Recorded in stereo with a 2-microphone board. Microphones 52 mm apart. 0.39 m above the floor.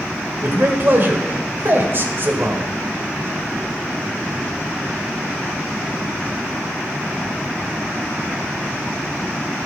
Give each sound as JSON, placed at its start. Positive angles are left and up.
{"t": 0.4, "sound": "a man speaking", "side_deg": -45, "distance_m": 1.4}